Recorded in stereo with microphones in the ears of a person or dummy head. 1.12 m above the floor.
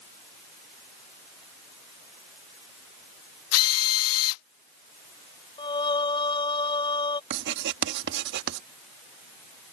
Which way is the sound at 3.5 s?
85° left.